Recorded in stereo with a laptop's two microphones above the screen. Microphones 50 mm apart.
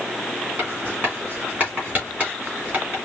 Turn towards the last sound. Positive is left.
turn(degrees=-35)  # may be behind; listen again after turning